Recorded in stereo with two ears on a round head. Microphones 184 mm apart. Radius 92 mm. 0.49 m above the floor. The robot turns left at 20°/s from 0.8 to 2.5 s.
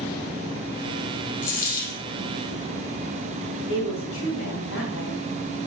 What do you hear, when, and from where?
1.4 s a dropped coin: 40° left (ahead or behind), 3 m; by 2.0 s 55° left (ahead or behind), 3 m
3.7 s a woman speaking: 70° left (ahead or behind), 3.5 m